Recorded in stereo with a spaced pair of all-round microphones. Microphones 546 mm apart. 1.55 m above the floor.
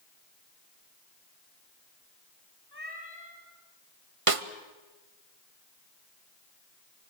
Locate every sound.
2.7 s a cat meowing: 45° left (ahead or behind), 4.5 m
4.3 s a snare drum: 70° right (ahead or behind), 1.1 m